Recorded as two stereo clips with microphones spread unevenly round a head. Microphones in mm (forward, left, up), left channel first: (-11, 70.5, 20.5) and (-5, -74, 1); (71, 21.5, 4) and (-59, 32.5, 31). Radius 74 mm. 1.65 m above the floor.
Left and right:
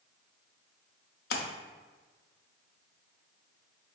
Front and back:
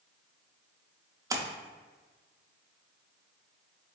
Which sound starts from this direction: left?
A splash, at 1.3 s.